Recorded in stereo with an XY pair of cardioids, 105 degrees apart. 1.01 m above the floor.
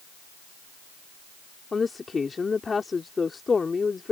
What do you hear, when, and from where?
1.7 s a woman speaking: 30° left